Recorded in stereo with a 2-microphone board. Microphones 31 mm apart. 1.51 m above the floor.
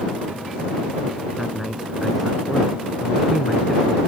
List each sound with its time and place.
1.4 s a man speaking: 10° right (ahead or behind); by 4.0 s 5° right (ahead or behind)